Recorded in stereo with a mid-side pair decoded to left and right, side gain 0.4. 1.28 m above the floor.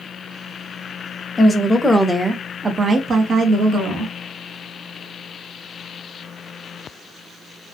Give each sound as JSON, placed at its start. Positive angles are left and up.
{"t": 1.4, "sound": "a woman speaking", "azimuth_deg": 20, "distance_m": 0.9}